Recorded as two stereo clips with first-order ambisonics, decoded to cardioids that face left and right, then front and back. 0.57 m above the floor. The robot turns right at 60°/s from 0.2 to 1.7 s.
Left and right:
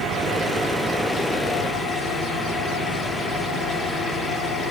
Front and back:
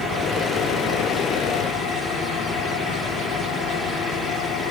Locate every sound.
0.0 s an engine running: 60° right, 4 m; by 4.7 s 30° left, 4 m